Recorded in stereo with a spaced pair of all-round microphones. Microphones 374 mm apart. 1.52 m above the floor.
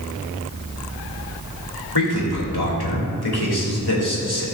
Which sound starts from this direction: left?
A man speaking, at 1.9 s.